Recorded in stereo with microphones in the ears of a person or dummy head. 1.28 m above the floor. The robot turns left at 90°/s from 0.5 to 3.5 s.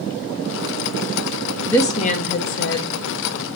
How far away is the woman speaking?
About 0.8 m.